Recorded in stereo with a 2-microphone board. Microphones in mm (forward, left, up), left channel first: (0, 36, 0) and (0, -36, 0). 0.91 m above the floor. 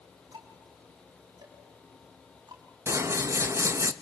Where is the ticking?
80° right, 4 m.